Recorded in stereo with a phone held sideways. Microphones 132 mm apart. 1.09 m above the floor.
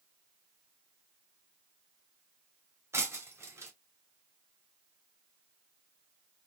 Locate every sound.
2.9 s breaking glass: 20° right (ahead or behind), 1.6 m